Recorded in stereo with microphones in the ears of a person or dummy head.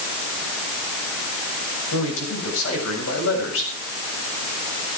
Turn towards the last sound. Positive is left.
turn(degrees=85)